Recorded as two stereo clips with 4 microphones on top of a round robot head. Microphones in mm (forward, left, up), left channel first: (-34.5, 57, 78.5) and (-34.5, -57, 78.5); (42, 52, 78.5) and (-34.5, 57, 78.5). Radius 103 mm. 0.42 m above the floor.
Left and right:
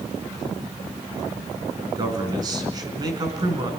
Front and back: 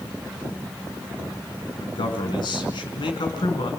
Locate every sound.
1.8 s a man speaking: 30° right, 5 m